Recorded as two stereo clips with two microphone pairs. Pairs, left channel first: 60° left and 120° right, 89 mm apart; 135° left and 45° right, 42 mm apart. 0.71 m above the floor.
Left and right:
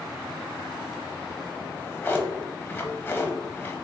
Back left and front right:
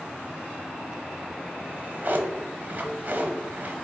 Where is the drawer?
10° right, 0.9 m.